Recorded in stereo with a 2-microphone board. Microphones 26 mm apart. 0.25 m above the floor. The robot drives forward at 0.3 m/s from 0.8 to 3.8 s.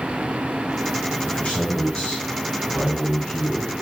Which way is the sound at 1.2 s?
50° left (ahead or behind).